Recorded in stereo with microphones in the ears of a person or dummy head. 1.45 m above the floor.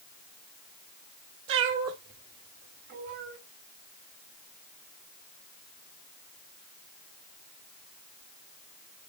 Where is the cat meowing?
65° right (ahead or behind), 1.9 m; by 3.4 s 40° right (ahead or behind), 2 m.